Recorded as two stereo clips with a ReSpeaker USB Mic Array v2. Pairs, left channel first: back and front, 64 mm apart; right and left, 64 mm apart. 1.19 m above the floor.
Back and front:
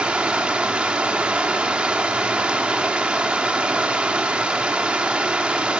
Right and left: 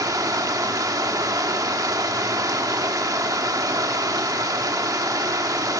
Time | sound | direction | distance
0.0 | running water | 75° left | 1.5 m